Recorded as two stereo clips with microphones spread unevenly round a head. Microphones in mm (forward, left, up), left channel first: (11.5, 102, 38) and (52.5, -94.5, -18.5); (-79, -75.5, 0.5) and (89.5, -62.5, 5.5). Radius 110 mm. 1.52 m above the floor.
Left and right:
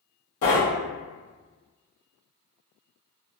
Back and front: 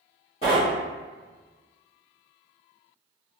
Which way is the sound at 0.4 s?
120° left.